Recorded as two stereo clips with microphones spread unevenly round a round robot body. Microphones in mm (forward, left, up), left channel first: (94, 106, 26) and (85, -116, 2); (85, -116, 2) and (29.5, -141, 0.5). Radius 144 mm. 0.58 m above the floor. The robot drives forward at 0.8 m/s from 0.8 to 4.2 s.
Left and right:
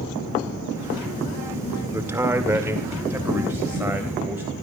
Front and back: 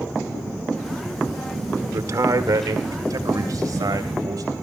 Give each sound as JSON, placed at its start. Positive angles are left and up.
{"t": 1.9, "sound": "a man speaking", "azimuth_deg": -170, "distance_m": 1.6}